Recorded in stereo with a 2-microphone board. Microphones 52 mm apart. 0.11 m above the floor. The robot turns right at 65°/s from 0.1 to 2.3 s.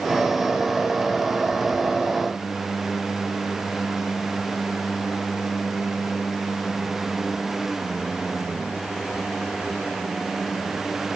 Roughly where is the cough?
No cough in this recording.